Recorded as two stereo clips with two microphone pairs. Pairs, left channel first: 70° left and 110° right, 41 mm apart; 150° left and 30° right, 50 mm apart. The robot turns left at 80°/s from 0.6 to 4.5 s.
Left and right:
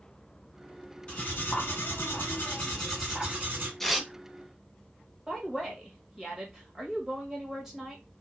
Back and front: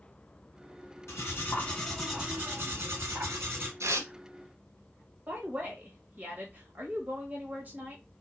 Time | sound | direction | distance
1.1 | cutlery clinking | 135° left | 1.8 m
3.8 | tearing paper | 10° right | 0.7 m
5.3 | a woman speaking | 40° right | 1.6 m